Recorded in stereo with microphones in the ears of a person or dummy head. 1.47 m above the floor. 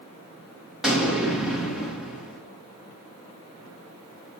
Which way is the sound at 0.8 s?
Centre (ahead or behind).